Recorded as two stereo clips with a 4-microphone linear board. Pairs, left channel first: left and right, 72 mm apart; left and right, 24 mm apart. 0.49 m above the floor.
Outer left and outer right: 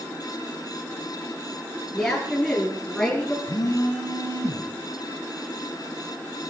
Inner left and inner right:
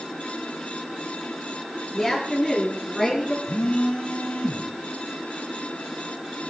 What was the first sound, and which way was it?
A woman speaking, 10° left (ahead or behind).